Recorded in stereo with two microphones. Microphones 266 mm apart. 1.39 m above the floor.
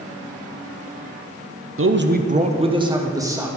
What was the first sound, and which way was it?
A man speaking, 50° right (ahead or behind).